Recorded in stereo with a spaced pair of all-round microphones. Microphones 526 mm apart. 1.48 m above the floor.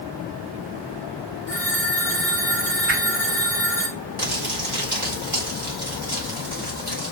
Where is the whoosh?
25° right (ahead or behind), 2.5 m.